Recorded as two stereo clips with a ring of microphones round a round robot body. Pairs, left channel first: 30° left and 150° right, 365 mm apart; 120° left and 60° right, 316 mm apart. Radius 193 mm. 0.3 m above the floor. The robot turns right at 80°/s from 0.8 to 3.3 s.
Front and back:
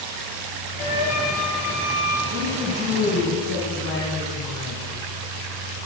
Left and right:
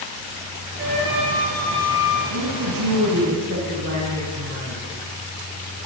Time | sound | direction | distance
0.8 | a flute | 5° right | 7 m
2.3 | a woman speaking | 105° right | 2.5 m